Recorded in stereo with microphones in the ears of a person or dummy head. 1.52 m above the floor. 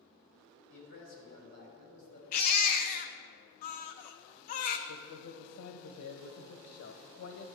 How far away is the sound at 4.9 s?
About 1.0 m.